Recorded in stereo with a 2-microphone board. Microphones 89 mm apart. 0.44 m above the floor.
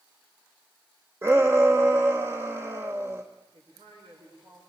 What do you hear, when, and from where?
1.2 s a shout: 30° right (ahead or behind), 1.2 m
3.5 s a man speaking: 75° right (ahead or behind), 8 m